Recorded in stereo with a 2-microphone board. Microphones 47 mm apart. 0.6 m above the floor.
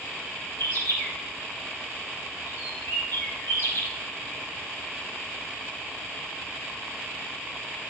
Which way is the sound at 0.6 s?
60° left (ahead or behind).